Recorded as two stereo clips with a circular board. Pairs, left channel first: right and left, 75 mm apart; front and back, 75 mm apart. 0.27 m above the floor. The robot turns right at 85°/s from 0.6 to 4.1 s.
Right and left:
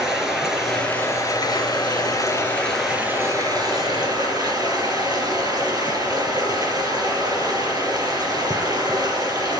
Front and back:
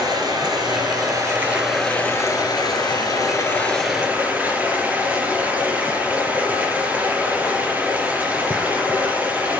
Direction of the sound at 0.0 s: 175° left.